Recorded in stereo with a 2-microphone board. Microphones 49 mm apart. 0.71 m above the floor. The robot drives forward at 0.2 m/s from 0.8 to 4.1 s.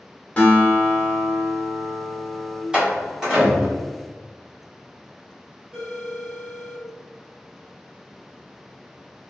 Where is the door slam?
20° right (ahead or behind), 1.2 m; by 3.8 s 15° right (ahead or behind), 1.4 m.